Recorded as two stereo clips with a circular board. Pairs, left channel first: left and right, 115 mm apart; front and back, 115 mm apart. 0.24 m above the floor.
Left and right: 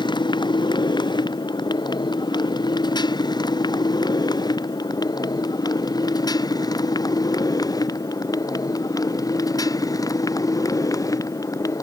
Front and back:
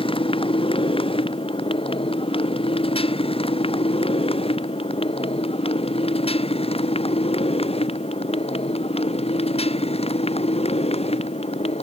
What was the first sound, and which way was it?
A motorcycle, 40° left.